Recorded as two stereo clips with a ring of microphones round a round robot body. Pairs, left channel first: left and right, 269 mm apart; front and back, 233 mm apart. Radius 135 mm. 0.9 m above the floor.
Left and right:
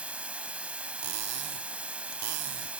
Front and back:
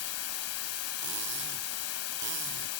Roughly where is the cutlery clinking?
Behind right.